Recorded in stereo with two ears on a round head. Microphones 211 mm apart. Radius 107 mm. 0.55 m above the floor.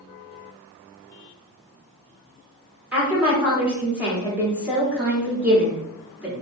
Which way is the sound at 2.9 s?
5° right (ahead or behind).